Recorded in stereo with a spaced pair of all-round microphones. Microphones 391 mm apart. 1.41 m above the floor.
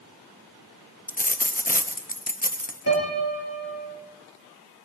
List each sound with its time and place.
1.1 s a dropped coin: 20° left (ahead or behind), 0.8 m
2.9 s a piano: 40° left (ahead or behind), 4 m